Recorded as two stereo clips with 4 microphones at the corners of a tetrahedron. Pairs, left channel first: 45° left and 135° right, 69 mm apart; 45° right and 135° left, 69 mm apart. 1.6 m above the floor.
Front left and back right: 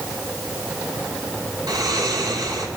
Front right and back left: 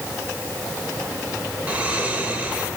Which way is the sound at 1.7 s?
155° right.